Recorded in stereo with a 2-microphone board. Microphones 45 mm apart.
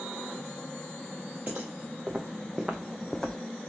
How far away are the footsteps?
About 1.5 m.